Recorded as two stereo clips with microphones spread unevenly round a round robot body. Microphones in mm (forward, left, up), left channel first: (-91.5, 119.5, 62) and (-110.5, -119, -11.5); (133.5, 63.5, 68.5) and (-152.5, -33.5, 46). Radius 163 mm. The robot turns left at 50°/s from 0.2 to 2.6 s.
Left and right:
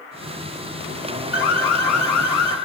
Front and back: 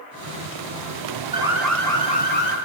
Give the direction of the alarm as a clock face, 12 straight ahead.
8 o'clock.